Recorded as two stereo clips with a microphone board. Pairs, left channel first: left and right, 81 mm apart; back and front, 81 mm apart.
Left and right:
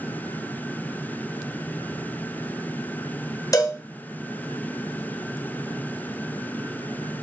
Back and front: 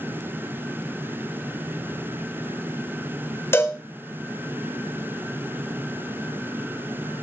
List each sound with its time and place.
3.5 s a cowbell: 125° left, 1.5 m